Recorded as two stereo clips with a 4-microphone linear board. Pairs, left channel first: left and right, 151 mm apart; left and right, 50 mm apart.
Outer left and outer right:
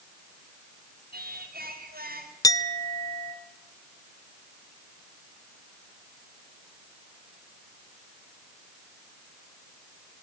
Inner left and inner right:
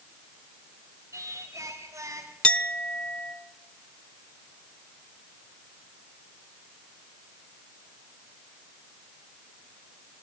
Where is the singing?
85° right, 4.5 m.